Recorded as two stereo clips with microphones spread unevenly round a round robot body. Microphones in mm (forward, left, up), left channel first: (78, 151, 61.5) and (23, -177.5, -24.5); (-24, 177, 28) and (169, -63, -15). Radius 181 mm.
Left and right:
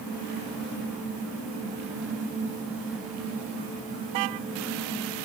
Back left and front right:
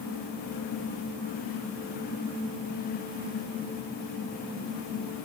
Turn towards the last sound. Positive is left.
No sound to turn to.